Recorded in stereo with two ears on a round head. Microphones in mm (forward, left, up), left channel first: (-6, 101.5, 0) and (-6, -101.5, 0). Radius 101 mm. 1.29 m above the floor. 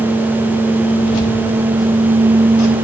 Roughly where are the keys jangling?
Left.